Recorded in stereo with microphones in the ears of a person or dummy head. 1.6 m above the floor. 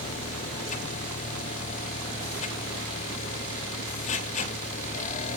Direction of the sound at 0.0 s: 40° left (ahead or behind).